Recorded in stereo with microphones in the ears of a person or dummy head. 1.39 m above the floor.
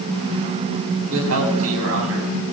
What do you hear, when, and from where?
1.1 s a man speaking: 90° right, 9.5 m